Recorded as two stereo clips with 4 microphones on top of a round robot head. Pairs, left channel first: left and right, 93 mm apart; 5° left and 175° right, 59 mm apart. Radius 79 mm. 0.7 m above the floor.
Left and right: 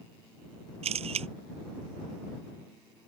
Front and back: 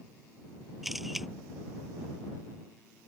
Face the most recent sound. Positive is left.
turn(degrees=-90)